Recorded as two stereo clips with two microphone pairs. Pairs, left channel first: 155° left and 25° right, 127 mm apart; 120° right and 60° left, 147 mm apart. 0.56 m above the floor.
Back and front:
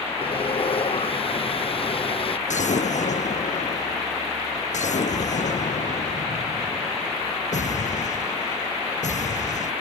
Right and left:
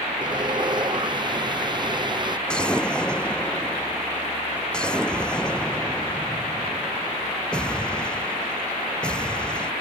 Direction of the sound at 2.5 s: 155° left.